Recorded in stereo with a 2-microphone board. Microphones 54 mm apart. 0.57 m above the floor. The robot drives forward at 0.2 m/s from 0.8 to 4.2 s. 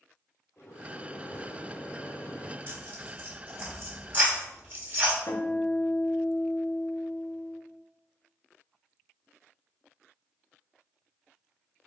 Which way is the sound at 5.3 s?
65° left (ahead or behind).